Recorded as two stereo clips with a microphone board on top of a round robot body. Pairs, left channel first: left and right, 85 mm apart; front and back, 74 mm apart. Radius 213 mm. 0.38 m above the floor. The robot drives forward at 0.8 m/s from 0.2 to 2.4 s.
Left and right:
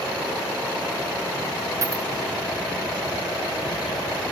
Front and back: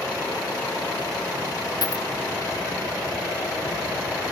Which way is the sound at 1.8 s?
35° right.